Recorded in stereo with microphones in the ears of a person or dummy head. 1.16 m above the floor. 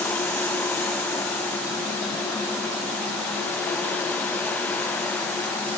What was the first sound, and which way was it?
Only background noise.